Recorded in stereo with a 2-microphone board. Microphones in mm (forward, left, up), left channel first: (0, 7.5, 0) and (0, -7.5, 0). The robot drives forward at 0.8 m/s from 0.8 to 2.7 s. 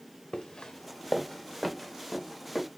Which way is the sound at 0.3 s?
80° left.